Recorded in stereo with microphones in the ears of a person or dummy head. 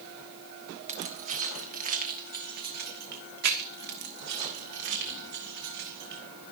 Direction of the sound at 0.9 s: 35° right (ahead or behind).